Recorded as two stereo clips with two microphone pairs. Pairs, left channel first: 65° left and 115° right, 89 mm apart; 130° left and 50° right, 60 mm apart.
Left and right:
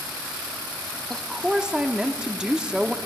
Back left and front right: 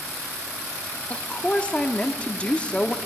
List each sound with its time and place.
1.1 s a woman speaking: 175° left, 0.7 m